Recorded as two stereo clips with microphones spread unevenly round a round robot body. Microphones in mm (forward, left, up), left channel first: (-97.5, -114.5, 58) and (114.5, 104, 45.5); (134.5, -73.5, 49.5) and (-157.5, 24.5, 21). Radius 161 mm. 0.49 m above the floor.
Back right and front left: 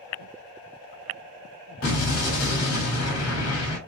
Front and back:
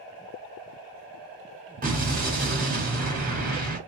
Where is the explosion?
150° right, 1.4 m.